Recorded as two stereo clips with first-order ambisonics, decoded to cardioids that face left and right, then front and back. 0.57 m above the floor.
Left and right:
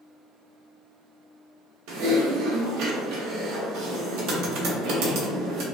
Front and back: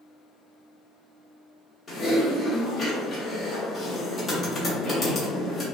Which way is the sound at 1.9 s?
75° right.